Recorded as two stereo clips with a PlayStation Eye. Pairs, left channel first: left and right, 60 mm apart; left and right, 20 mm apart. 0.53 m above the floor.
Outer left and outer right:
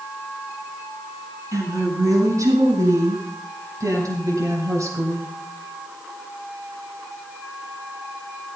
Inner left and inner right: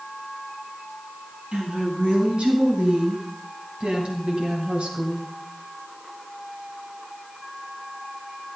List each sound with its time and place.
1.5 s a woman speaking: 70° right (ahead or behind), 6 m; by 5.3 s 65° right (ahead or behind), 3 m